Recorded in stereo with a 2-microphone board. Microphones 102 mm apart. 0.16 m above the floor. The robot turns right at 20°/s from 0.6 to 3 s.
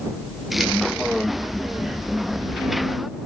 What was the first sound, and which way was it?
Only background noise.